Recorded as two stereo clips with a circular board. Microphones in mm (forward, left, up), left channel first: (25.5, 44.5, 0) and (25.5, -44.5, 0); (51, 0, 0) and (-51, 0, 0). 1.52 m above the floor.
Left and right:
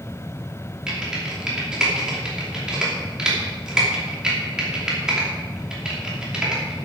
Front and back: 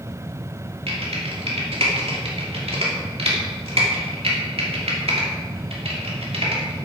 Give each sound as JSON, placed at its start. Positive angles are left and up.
{"t": 0.9, "sound": "typing on a keyboard", "azimuth_deg": -170, "distance_m": 2.5}